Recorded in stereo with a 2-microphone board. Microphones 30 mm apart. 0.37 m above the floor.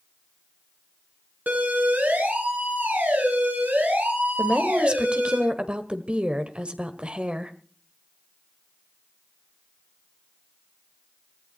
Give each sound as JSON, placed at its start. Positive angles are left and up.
{"t": 1.5, "sound": "a siren", "side_deg": -65, "distance_m": 4.0}
{"t": 4.4, "sound": "a woman speaking", "side_deg": -35, "distance_m": 1.4}